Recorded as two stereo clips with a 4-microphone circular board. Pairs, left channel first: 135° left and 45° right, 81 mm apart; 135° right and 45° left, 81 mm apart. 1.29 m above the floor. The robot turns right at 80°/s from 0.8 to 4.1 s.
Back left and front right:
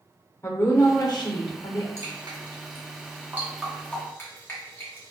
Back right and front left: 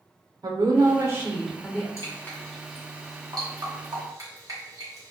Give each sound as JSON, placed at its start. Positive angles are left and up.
{"t": 0.4, "sound": "a woman speaking", "azimuth_deg": 75, "distance_m": 0.7}
{"t": 2.0, "sound": "dripping", "azimuth_deg": -95, "distance_m": 0.9}